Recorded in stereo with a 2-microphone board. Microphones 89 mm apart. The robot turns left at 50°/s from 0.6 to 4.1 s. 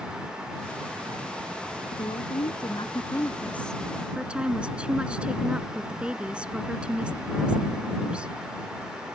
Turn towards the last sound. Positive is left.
turn(degrees=-10)